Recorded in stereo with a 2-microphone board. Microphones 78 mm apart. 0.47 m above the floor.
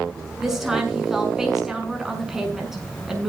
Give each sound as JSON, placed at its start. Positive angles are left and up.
{"t": 0.4, "sound": "a woman speaking", "side_deg": -5, "distance_m": 6.0}